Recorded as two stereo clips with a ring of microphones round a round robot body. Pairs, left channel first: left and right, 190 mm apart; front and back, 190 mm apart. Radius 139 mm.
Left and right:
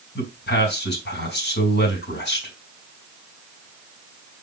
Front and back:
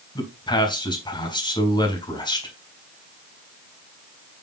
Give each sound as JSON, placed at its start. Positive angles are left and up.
{"t": 0.1, "sound": "a man speaking", "azimuth_deg": 65, "distance_m": 3.5}